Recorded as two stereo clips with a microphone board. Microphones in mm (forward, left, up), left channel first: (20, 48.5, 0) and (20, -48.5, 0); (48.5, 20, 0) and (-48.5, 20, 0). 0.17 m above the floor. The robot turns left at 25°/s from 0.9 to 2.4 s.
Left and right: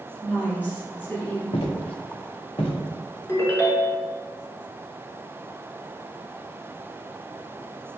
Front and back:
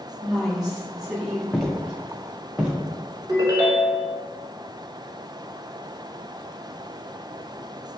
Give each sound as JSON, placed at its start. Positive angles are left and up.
{"t": 0.2, "sound": "a woman speaking", "azimuth_deg": 110, "distance_m": 1.1}
{"t": 1.5, "sound": "footsteps", "azimuth_deg": 90, "distance_m": 0.7}
{"t": 3.3, "sound": "a ringtone", "azimuth_deg": 145, "distance_m": 0.7}